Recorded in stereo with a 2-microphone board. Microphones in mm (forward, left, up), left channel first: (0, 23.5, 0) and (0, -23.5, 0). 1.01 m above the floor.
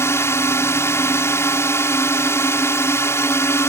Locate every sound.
0.0 s a drone: 70° left (ahead or behind)